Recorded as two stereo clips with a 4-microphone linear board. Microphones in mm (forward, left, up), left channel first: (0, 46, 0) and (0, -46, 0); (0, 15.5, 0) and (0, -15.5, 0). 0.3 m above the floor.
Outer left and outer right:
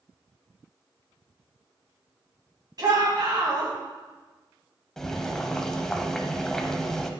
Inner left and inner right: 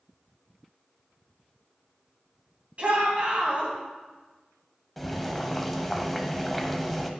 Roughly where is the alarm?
I don't hear an alarm.